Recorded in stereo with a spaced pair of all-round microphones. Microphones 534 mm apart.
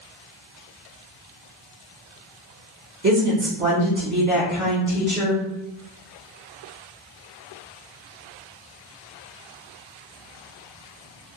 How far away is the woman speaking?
About 1.5 m.